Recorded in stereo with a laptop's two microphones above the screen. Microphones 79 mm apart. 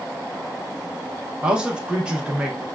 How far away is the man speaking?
About 0.7 m.